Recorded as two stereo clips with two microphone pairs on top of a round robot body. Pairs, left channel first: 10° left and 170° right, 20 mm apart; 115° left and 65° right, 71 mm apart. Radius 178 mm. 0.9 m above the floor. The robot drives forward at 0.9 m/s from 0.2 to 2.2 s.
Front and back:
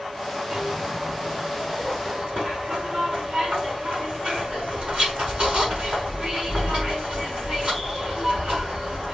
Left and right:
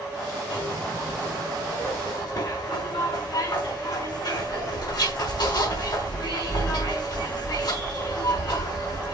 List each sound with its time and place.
0.5 s a zipper: 130° left, 5 m; by 9.1 s 140° left, 6 m